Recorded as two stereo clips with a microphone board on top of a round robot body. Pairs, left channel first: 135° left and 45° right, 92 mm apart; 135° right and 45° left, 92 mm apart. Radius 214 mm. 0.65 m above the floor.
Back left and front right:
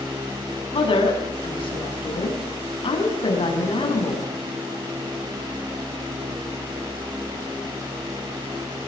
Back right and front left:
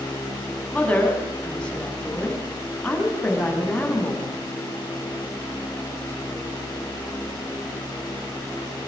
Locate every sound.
0.7 s a woman speaking: 145° left, 7 m